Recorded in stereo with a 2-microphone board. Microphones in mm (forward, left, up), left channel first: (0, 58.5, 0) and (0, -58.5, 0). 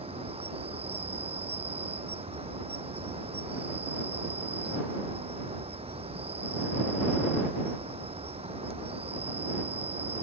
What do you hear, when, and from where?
0.0 s an insect: 60° right (ahead or behind)